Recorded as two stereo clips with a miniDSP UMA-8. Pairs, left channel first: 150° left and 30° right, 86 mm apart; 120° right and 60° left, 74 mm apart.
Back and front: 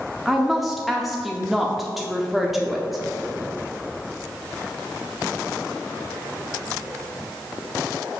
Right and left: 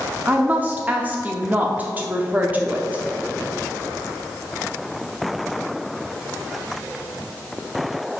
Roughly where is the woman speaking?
Ahead left.